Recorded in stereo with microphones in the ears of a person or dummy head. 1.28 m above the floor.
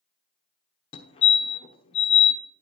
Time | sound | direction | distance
0.9 | a fire alarm | 25° left (ahead or behind) | 1.0 m